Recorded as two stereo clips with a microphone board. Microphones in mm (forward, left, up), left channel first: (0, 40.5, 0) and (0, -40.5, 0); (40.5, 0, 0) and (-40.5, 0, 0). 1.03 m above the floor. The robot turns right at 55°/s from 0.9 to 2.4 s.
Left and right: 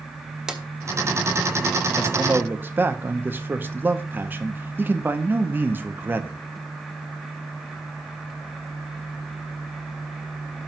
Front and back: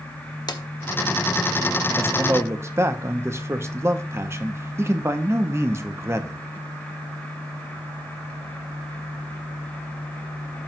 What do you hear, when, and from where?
0.5 s a drawer: 10° right, 0.7 m
2.0 s a man speaking: 165° right, 0.7 m; by 6.4 s 140° right, 0.7 m